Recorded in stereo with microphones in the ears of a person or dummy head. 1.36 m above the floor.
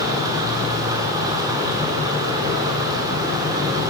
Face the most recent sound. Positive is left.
turn(degrees=-15)  # may be behind; listen again after turning